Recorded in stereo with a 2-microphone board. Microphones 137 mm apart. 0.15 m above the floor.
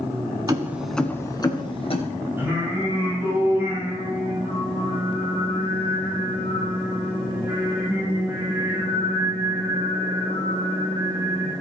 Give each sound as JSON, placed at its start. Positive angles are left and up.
{"t": 0.5, "sound": "keys jangling", "side_deg": -30, "distance_m": 1.2}
{"t": 2.4, "sound": "singing", "side_deg": -15, "distance_m": 7.0}